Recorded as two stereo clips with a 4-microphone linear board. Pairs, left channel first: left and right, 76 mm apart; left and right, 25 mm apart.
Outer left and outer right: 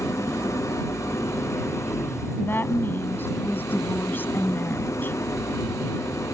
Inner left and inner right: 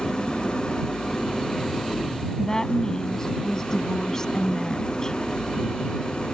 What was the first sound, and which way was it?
An engine running, 40° left (ahead or behind).